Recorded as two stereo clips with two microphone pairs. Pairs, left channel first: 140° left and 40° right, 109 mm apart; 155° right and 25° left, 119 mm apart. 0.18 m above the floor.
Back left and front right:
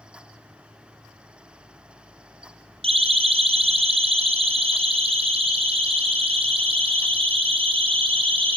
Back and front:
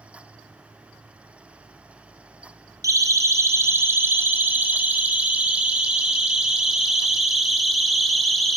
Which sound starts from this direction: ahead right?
A siren, at 2.8 s.